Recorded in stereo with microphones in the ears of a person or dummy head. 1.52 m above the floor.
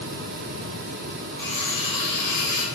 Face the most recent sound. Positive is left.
turn(degrees=5)  # may be behind; listen again after turning